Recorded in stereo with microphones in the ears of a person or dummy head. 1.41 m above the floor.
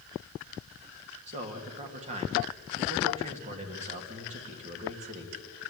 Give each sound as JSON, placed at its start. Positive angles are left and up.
{"t": 1.3, "sound": "a man speaking", "side_deg": -35, "distance_m": 2.0}